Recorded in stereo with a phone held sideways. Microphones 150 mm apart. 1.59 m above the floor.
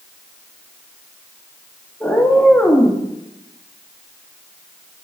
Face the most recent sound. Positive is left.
turn(degrees=15)  # may be behind; listen again after turning